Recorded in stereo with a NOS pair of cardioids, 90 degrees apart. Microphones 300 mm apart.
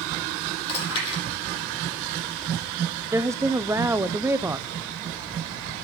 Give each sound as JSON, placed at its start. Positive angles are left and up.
{"t": 0.7, "sound": "chewing", "azimuth_deg": 35, "distance_m": 10.0}
{"t": 3.1, "sound": "a woman speaking", "azimuth_deg": -10, "distance_m": 0.7}